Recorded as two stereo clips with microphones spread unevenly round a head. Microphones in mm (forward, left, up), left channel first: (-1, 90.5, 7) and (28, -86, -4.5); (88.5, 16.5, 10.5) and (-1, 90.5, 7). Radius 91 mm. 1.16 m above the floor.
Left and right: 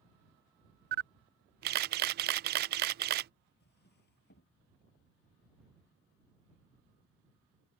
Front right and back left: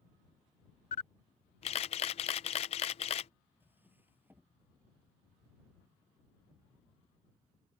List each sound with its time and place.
0.9 s a camera shutter: 70° right
3.6 s a drawer: 65° left